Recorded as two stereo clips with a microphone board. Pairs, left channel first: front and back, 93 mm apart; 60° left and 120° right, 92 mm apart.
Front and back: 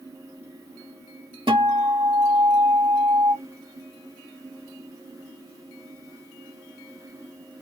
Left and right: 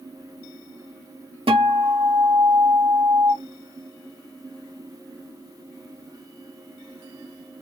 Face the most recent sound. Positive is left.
turn(degrees=-145)